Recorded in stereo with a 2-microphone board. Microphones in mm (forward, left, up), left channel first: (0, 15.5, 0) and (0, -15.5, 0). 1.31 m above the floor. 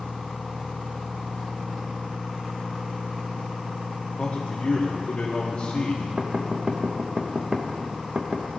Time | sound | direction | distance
4.2 | a man speaking | 35° left (ahead or behind) | 1.1 m
6.2 | knocking | 30° right (ahead or behind) | 0.8 m